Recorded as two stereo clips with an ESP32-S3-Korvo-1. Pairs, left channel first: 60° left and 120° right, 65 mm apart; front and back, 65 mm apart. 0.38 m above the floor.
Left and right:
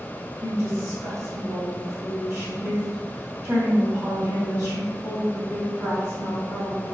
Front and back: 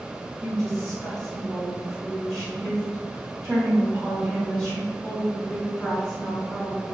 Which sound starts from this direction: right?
A woman speaking, at 0.4 s.